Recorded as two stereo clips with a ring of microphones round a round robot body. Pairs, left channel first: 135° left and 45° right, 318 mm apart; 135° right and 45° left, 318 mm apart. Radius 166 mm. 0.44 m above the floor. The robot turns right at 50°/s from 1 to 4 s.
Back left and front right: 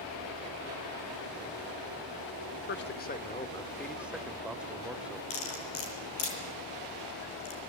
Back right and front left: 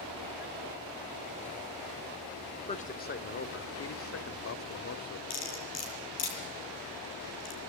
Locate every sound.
2.7 s a man speaking: 165° left, 1.6 m; by 5.2 s 130° right, 1.6 m
5.3 s cutlery clinking: 175° right, 7.5 m